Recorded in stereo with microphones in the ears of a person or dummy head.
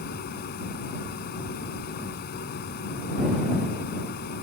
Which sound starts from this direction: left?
A fan, at 0.0 s.